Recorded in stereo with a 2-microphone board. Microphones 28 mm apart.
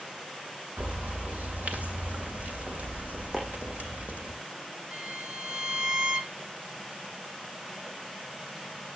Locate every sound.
0.8 s a bird: 65° right (ahead or behind), 2.5 m
3.3 s chopping: centre (ahead or behind), 8.5 m
4.9 s a violin: 35° right (ahead or behind), 1.1 m